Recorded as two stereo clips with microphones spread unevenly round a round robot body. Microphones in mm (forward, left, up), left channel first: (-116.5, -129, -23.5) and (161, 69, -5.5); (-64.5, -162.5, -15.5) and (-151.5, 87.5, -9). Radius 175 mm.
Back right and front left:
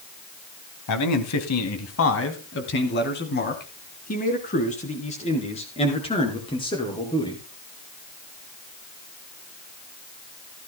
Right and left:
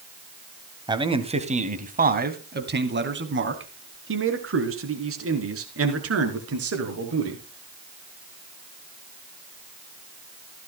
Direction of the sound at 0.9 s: Straight behind.